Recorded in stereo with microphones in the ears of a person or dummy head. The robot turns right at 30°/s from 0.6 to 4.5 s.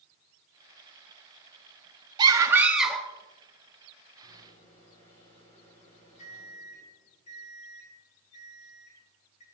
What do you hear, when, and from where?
2.2 s a scream: 25° right (ahead or behind), 1.0 m; by 3.1 s 5° left (ahead or behind), 1.0 m
4.2 s a microwave: 30° left (ahead or behind), 4.5 m; by 9.4 s 35° left (ahead or behind), 4.5 m